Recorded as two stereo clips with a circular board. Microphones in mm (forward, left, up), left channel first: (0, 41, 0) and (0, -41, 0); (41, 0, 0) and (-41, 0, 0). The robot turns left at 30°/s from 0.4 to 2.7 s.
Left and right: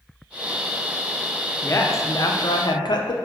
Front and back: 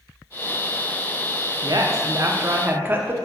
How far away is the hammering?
I don't hear hammering.